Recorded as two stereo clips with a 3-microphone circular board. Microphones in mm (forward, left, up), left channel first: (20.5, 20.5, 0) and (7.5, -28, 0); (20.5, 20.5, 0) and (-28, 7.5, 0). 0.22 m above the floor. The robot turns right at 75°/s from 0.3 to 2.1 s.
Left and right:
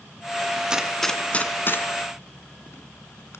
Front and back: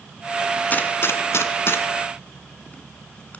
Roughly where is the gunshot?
Ahead right.